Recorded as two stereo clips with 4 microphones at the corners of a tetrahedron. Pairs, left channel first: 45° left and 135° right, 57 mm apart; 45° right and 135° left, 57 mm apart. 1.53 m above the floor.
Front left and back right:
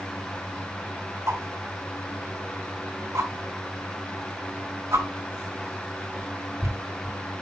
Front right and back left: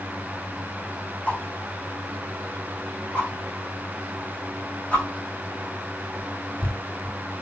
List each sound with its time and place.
1.3 s a whoosh: 110° right, 3.5 m